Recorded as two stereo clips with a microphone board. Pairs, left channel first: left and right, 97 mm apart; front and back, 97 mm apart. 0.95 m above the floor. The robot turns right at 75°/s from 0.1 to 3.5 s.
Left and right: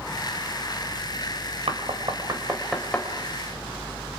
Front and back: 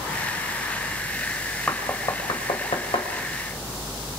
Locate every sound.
1.7 s knocking: 80° right, 3.5 m; by 3.1 s 25° left, 3.5 m